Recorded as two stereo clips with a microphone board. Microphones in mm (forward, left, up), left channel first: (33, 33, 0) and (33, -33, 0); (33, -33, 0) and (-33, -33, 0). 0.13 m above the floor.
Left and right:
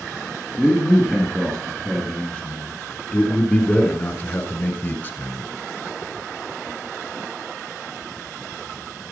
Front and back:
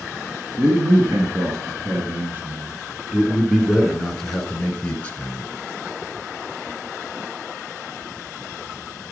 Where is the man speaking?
Straight behind, 2.5 m; by 5.5 s 55° left, 2.0 m.